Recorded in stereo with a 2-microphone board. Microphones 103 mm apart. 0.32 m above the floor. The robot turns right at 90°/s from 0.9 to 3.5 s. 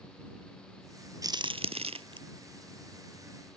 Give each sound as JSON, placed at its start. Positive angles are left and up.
{"t": 1.2, "sound": "a crack", "side_deg": -35}